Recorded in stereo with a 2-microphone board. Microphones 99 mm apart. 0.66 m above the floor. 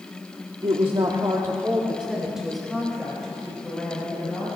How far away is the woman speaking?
About 1.4 m.